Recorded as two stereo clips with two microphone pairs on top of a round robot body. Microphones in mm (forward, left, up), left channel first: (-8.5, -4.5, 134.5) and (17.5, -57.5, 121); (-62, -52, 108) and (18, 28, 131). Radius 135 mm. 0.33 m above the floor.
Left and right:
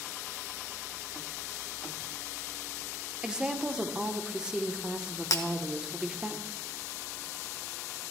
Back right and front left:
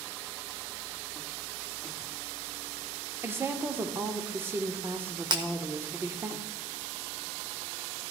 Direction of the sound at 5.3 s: 100° left.